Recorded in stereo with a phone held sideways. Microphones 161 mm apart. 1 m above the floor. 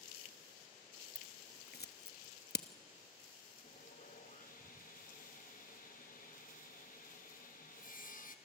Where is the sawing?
55° left (ahead or behind), 1.3 m.